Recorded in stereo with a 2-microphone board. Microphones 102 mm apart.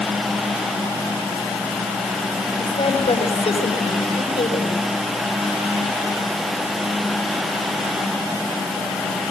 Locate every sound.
2.6 s a woman speaking: 70° left (ahead or behind), 5 m